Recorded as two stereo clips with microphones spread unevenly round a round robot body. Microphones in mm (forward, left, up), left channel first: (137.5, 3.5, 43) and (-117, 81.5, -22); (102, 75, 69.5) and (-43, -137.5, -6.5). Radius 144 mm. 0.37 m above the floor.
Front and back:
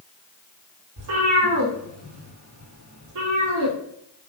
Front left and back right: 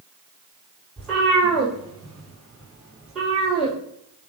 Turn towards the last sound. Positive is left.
turn(degrees=145)